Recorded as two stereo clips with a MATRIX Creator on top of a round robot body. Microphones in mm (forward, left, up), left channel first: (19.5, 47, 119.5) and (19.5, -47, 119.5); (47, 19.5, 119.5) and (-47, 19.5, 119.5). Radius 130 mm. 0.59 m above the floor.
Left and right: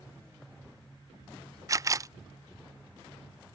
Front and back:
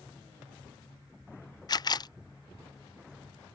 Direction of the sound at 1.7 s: 40° right.